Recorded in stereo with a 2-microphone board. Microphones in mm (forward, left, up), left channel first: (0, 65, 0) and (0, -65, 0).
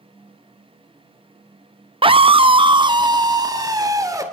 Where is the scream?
40° right (ahead or behind), 0.7 m; by 4.2 s 25° right (ahead or behind), 2.5 m.